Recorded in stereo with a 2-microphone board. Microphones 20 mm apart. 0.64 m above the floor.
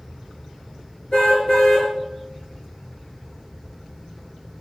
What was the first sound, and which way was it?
A car horn, 55° left (ahead or behind).